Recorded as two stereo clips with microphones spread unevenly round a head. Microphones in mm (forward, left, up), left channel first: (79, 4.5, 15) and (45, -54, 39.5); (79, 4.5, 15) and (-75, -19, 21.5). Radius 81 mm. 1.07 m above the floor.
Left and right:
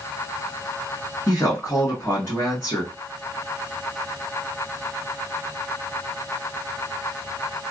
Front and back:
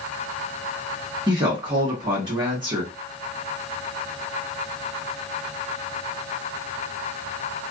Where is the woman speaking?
125° left, 1.3 m.